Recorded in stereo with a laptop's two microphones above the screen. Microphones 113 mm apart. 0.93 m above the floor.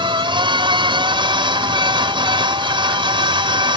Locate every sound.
0.0 s a machine running: 45° right (ahead or behind)